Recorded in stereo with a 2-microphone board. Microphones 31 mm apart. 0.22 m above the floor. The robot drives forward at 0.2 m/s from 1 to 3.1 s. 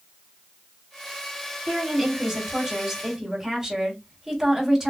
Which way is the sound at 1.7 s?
20° right (ahead or behind).